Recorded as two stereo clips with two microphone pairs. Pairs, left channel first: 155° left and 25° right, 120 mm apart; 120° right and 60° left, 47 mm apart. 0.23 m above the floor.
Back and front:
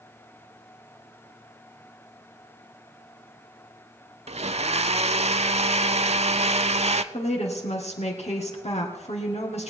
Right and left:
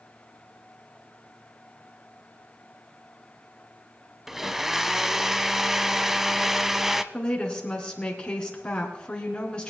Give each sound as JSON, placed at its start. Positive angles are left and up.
{"t": 4.3, "sound": "a blender", "azimuth_deg": -20, "distance_m": 0.5}
{"t": 7.1, "sound": "a woman speaking", "azimuth_deg": 170, "distance_m": 3.0}